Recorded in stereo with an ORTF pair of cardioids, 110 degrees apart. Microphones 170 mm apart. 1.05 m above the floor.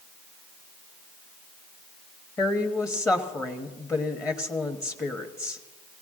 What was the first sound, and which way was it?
A woman speaking, 20° left.